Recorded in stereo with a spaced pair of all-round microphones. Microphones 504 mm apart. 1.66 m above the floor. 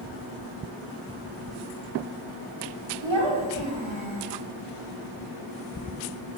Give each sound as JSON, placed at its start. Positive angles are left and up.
{"t": 3.0, "sound": "a child speaking", "side_deg": -65, "distance_m": 4.0}